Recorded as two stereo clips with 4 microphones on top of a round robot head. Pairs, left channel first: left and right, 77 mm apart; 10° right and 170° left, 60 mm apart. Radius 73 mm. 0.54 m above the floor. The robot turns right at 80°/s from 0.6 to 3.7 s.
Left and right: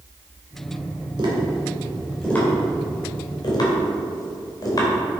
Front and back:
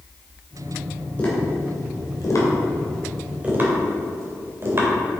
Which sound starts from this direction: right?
Tapping, at 1.2 s.